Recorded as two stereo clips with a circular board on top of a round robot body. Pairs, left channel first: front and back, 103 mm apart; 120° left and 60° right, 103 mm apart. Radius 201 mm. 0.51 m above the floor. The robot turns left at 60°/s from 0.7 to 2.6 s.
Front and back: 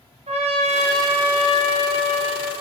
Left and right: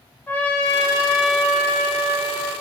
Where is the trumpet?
170° right, 1.3 m; by 2.5 s 85° left, 1.3 m.